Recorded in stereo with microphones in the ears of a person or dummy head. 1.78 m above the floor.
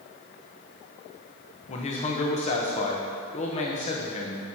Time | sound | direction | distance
1.7 | a man speaking | 35° left (ahead or behind) | 1.2 m